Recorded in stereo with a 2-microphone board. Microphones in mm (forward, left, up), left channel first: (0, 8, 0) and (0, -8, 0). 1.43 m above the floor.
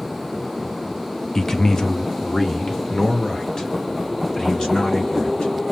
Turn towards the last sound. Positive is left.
turn(degrees=65)  # may be behind; listen again after turning